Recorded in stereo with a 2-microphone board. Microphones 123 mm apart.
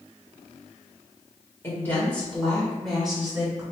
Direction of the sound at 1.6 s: 20° left (ahead or behind).